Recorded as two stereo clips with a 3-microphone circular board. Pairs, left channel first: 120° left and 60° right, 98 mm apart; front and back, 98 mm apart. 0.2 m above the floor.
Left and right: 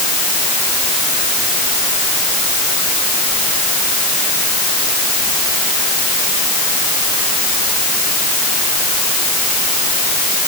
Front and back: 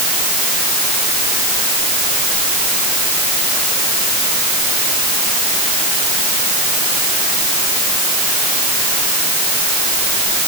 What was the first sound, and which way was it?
Only background noise.